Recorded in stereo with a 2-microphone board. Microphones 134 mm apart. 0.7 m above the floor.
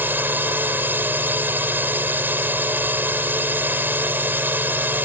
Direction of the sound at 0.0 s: 15° right (ahead or behind).